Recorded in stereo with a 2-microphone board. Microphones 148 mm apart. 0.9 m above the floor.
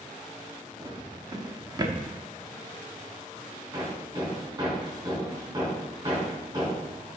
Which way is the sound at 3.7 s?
25° right (ahead or behind).